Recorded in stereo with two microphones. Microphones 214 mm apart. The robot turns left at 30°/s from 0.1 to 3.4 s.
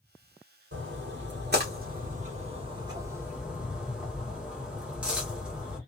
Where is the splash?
65° right (ahead or behind), 1.0 m; by 5.8 s 5° right (ahead or behind), 1.0 m.